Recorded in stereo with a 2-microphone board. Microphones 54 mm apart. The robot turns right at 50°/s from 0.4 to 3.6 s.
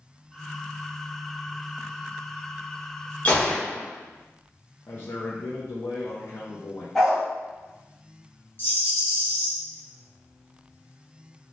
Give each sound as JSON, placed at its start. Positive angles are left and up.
{"t": 3.2, "sound": "a gunshot", "side_deg": 30, "distance_m": 1.0}
{"t": 4.9, "sound": "a man speaking", "side_deg": 45, "distance_m": 0.6}
{"t": 7.0, "sound": "a dog barking", "side_deg": 5, "distance_m": 1.1}
{"t": 8.6, "sound": "a rattle", "side_deg": 40, "distance_m": 1.4}